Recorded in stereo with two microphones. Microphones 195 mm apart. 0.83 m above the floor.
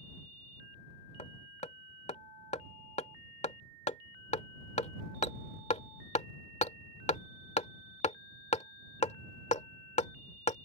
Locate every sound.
1.2 s hammering: 40° left (ahead or behind)